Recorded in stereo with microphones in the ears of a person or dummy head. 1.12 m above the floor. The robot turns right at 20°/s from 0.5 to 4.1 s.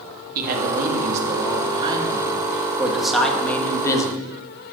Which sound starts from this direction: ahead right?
A man speaking, at 0.3 s.